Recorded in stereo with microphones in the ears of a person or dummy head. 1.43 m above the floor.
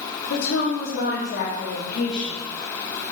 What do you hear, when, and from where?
0.3 s a woman speaking: 75° left (ahead or behind), 2 m; by 2.4 s 35° left (ahead or behind), 2.5 m